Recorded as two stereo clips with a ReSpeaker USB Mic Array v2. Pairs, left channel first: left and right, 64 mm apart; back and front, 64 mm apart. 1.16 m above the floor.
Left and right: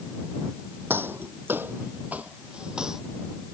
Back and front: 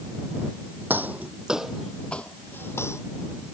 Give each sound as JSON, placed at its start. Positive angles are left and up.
{"t": 0.9, "sound": "footsteps", "azimuth_deg": -50}